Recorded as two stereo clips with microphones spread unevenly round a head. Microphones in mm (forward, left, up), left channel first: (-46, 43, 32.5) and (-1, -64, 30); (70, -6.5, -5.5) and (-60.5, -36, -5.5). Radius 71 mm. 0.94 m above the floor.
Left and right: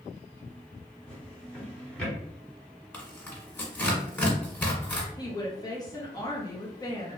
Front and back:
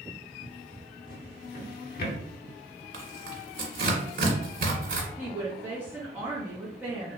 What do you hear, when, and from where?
1.1 s a drawer: 30° left, 0.9 m
2.9 s tearing paper: 175° right, 1.6 m
5.2 s a woman speaking: 125° left, 0.8 m